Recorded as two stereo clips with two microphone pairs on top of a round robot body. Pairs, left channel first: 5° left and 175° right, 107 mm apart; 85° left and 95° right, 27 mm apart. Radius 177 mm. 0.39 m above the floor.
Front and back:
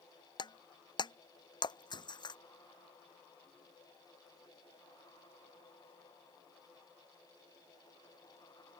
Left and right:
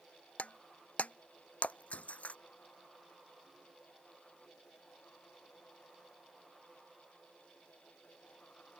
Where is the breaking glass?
55° left.